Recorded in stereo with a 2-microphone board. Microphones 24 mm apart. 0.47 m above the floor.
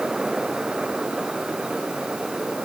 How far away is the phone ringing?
No phone ringing in this recording.